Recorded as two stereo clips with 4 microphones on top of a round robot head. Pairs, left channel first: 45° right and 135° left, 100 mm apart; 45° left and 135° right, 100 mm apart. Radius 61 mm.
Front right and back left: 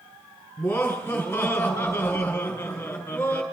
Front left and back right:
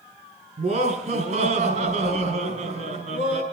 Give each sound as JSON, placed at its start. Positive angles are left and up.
{"t": 0.6, "sound": "laughter", "azimuth_deg": -120, "distance_m": 7.5}